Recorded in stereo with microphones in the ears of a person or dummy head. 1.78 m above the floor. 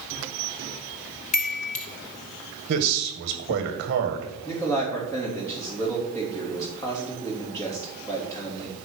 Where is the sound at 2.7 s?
55° right (ahead or behind), 1.8 m.